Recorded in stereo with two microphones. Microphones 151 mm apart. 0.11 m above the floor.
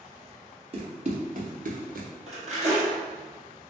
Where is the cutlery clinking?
45° right (ahead or behind), 1.8 m.